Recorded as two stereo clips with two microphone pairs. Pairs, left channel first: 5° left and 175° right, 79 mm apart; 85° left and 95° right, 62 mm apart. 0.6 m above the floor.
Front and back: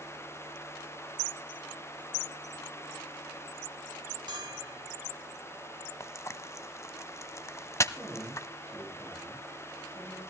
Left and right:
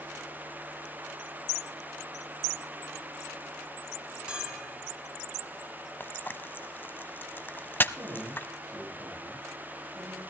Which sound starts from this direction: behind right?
A man speaking, at 7.9 s.